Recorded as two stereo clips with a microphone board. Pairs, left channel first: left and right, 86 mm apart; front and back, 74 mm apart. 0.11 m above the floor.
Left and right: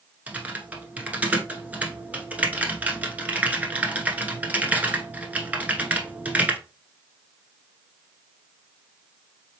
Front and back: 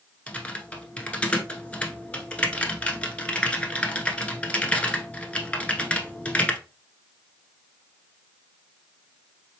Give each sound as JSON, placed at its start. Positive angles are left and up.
{"t": 0.3, "sound": "typing on a keyboard", "azimuth_deg": -50, "distance_m": 0.9}